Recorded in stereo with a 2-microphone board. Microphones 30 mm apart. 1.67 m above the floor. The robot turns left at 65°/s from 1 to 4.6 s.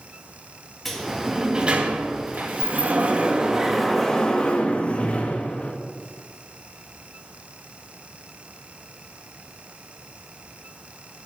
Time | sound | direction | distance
0.8 | a sliding door | 5° left | 1.9 m